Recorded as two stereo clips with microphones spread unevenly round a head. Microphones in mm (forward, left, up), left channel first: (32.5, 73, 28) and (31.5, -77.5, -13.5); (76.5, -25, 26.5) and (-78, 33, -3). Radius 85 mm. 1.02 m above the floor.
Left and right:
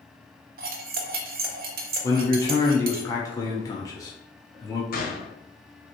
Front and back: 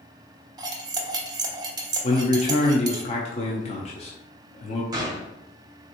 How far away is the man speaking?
About 0.6 m.